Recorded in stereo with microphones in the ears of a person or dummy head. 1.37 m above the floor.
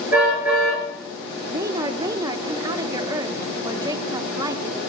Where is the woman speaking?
20° right (ahead or behind), 1.2 m.